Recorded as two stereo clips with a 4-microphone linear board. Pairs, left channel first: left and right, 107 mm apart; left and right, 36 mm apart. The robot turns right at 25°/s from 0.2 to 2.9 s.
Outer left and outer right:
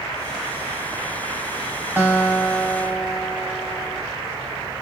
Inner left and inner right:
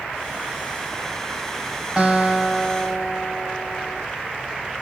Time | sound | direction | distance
2.0 | a guitar | 20° right (ahead or behind) | 1.4 m